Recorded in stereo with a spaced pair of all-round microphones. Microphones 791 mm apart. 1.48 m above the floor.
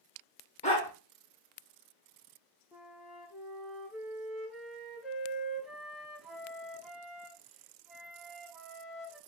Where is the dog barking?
10° left (ahead or behind), 1.5 m.